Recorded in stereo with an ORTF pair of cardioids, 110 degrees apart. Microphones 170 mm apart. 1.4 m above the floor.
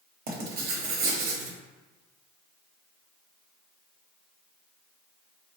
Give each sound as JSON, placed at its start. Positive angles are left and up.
{"t": 0.3, "sound": "writing", "azimuth_deg": -65, "distance_m": 0.9}